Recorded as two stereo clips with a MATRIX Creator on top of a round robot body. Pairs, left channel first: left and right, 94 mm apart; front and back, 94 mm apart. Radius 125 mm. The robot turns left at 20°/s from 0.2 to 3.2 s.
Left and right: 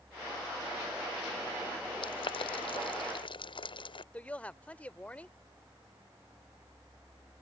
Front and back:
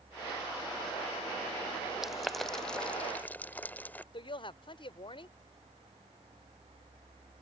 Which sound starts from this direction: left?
Boiling, at 2.0 s.